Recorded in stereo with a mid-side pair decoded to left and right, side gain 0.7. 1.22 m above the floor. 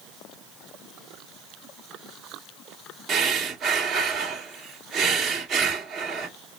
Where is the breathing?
45° right, 1.9 m.